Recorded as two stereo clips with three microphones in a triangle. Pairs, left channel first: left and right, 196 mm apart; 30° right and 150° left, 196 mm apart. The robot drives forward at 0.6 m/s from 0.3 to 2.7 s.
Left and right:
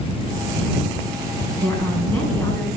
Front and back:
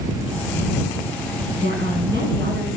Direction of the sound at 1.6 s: 165° left.